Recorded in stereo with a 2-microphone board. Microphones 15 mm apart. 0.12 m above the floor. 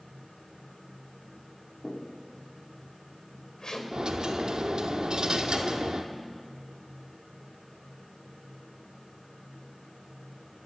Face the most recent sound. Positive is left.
turn(degrees=-75)  # may be behind; listen again after turning